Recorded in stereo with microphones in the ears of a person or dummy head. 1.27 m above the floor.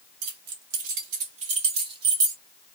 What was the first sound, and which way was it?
Keys jangling, 65° right (ahead or behind).